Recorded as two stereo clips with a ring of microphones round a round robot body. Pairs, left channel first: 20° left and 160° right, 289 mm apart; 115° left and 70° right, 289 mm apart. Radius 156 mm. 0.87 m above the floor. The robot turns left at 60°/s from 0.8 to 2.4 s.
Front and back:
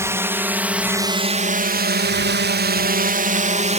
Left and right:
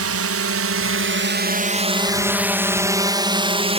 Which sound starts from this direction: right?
A drone, at 0.0 s.